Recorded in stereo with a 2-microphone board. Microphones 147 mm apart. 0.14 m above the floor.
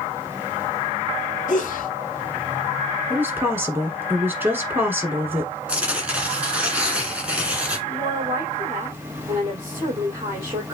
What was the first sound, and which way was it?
A sneeze, 65° left (ahead or behind).